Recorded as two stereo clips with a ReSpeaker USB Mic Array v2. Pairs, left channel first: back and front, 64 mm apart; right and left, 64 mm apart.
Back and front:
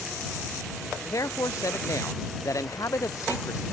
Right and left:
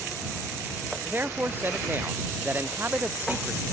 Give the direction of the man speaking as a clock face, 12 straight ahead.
7 o'clock.